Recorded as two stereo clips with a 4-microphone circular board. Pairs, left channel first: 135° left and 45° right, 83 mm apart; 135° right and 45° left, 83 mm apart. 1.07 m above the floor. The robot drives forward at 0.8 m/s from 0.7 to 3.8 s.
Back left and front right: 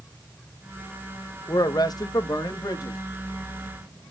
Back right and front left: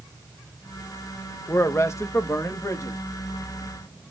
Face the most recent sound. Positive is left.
turn(degrees=175)